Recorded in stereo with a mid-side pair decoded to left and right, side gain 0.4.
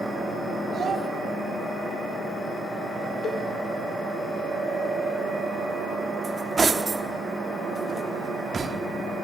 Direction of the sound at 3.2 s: 60° left.